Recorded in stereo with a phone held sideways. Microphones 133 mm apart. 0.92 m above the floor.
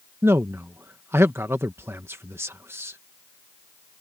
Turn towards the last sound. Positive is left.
turn(degrees=-20)  # may be behind; listen again after turning